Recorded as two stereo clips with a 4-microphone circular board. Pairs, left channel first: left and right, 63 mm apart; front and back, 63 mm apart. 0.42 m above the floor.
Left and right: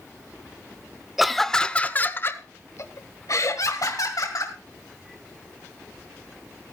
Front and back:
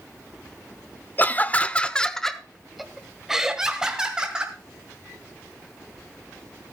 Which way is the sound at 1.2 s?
5° right.